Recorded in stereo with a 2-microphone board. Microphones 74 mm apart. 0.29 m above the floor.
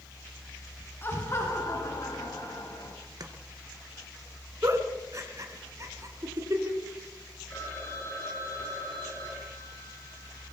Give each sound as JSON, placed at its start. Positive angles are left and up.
{"t": 1.0, "sound": "laughter", "side_deg": 30, "distance_m": 4.0}
{"t": 3.2, "sound": "chopping", "side_deg": -55, "distance_m": 2.5}
{"t": 4.6, "sound": "a giggle", "side_deg": -40, "distance_m": 3.0}
{"t": 7.5, "sound": "a phone ringing", "side_deg": 30, "distance_m": 9.0}